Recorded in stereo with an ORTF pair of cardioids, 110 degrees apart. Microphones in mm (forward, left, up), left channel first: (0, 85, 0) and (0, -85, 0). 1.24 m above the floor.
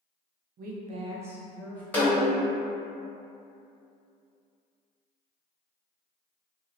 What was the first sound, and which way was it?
A woman speaking, 70° right.